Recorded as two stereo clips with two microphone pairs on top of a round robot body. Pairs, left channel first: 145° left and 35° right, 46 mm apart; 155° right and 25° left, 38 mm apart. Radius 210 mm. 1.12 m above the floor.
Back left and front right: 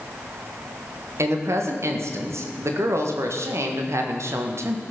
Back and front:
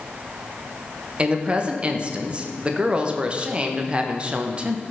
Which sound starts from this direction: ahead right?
A woman speaking, at 1.2 s.